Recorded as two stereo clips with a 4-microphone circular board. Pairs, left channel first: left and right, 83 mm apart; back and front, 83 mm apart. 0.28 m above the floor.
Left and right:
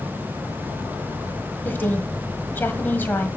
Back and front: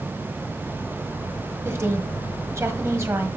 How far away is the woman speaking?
About 1.4 m.